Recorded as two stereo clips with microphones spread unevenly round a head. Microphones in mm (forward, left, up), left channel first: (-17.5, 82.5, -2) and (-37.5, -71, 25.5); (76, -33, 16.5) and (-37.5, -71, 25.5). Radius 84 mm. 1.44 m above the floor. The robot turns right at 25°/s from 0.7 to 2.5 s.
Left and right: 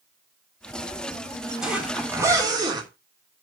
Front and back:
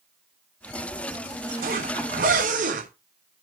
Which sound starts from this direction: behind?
A zipper, at 1.6 s.